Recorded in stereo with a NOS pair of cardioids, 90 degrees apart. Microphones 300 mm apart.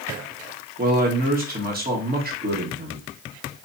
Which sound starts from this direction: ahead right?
A man speaking, at 0.8 s.